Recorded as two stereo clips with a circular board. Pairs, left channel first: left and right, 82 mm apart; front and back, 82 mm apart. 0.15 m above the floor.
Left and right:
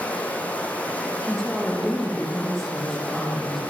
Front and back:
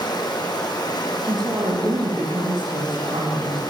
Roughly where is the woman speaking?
Behind.